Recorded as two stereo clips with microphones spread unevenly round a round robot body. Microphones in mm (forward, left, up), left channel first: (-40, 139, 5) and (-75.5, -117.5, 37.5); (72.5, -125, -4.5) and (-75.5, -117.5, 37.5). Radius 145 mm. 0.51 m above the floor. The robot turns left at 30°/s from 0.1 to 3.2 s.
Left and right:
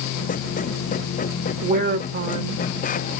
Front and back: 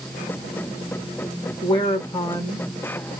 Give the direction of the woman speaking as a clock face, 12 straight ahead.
1 o'clock.